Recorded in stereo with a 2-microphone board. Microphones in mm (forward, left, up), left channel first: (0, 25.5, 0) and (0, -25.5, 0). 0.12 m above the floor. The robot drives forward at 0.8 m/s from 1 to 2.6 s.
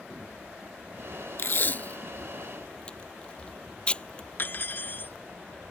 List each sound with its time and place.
1.4 s tape being pulled: 50° left (ahead or behind); by 4.3 s 25° left (ahead or behind)
4.4 s cutlery clinking: 40° left (ahead or behind)